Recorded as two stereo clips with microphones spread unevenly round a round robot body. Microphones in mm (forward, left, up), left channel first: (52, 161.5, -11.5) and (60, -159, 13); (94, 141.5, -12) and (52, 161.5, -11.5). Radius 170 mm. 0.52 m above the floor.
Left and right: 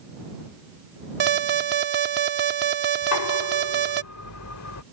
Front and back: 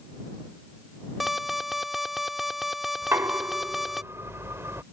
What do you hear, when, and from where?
1.2 s an alarm: 120° right
3.0 s knocking: 135° left